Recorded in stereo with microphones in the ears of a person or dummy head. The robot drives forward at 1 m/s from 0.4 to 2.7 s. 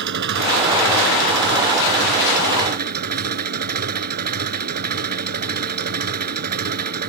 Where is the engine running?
60° right (ahead or behind); by 7.1 s 50° right (ahead or behind).